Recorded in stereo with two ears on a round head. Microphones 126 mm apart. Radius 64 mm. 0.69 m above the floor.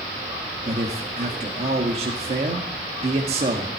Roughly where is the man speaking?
Right.